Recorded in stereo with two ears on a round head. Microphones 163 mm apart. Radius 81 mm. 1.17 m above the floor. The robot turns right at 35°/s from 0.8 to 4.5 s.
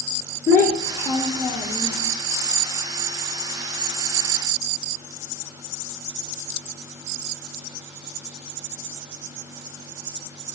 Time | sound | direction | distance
0.5 | a child speaking | 155° left | 0.9 m